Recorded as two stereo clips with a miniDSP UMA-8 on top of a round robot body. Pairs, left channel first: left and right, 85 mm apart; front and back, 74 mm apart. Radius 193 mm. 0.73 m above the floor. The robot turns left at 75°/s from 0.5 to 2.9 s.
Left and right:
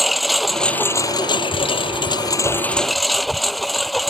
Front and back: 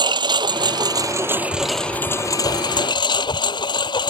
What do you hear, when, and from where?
0.0 s a lawn mower: straight behind; by 4.1 s straight ahead